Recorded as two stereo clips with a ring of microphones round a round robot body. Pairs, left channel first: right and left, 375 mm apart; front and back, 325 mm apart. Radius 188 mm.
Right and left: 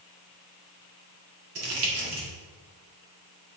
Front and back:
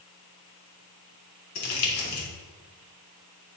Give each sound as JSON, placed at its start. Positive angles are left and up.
{"t": 1.6, "sound": "crumpling", "azimuth_deg": 40, "distance_m": 2.0}